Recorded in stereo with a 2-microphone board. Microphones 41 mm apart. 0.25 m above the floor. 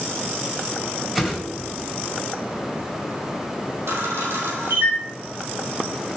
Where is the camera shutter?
80° right, 2.5 m.